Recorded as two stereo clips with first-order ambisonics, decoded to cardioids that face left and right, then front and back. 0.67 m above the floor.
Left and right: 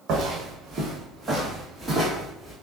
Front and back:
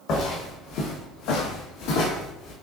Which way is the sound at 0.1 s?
45° right.